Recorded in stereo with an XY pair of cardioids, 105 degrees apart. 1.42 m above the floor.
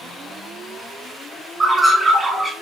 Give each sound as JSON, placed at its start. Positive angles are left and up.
{"t": 1.6, "sound": "a bird", "azimuth_deg": -30, "distance_m": 1.4}